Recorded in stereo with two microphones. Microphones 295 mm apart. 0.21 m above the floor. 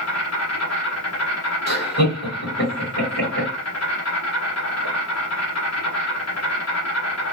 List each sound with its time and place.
0.0 s an insect: 60° left (ahead or behind), 1.0 m
1.7 s laughter: 35° left (ahead or behind), 1.8 m